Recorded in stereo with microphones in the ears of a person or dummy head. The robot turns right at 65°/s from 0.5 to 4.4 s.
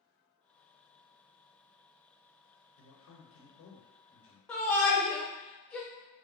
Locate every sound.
2.8 s a man speaking: 75° left, 0.7 m; by 4.4 s straight behind, 0.7 m
4.5 s a shout: 5° left (ahead or behind), 0.7 m